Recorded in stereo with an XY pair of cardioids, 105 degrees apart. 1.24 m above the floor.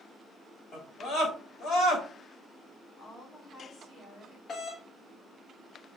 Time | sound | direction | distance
0.7 | a scream | 70° left | 3.5 m
3.0 | a woman speaking | 70° left | 3.5 m
4.5 | a doorbell | 50° left | 1.0 m